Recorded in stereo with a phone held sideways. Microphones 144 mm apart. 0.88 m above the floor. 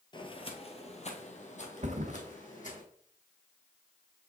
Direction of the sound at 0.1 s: 35° left (ahead or behind).